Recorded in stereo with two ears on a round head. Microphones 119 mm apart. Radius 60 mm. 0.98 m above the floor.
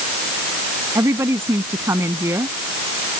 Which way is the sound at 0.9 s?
20° right (ahead or behind).